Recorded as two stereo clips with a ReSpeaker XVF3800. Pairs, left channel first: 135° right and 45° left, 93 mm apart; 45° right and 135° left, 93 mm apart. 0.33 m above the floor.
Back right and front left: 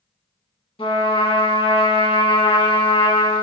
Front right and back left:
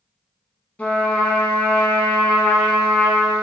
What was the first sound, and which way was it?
A trumpet, 120° right.